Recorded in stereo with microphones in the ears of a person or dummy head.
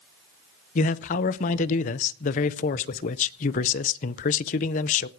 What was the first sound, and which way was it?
A man speaking, 40° left (ahead or behind).